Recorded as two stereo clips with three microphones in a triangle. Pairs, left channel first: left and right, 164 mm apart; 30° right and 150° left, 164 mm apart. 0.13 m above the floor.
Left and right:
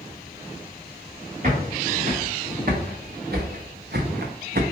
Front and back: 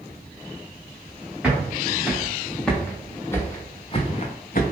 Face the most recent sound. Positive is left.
turn(degrees=-60)